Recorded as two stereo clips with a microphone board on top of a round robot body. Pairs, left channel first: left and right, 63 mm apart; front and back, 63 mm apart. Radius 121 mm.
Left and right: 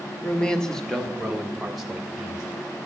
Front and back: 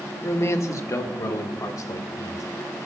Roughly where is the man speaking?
Ahead left.